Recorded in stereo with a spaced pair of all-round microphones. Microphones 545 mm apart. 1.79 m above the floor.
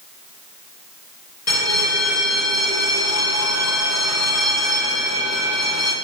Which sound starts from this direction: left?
A bell, at 1.5 s.